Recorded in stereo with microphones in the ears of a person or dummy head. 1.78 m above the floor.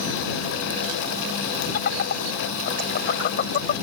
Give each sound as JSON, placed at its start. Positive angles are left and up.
{"t": 1.7, "sound": "laughter", "side_deg": 55}